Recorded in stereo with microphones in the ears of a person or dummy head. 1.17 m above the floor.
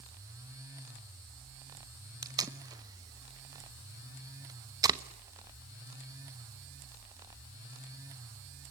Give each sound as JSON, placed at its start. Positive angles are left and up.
{"t": 2.2, "sound": "tape being pulled", "side_deg": -20, "distance_m": 0.9}